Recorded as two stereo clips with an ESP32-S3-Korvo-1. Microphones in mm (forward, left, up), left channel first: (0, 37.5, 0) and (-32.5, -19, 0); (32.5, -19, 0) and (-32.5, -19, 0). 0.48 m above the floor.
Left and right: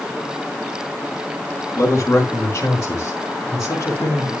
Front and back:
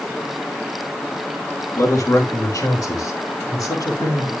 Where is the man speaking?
15° left, 5 m.